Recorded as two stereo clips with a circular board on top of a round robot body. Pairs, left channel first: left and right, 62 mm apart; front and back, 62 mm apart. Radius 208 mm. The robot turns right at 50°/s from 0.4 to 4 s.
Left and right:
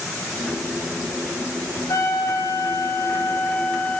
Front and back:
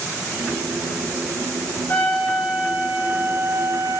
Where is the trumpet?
65° left, 7.5 m; by 4.0 s 170° left, 7.5 m.